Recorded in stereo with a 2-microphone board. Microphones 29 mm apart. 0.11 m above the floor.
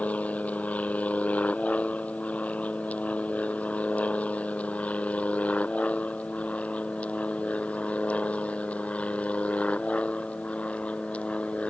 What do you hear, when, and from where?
0.0 s an aircraft: 55° left (ahead or behind); by 11.7 s 50° left (ahead or behind)